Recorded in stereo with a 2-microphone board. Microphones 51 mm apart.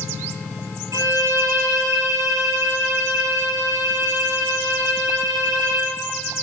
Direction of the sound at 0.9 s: 80° right.